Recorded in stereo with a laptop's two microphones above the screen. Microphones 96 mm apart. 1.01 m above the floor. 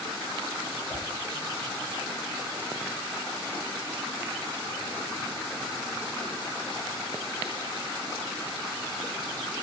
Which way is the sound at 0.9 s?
25° left (ahead or behind).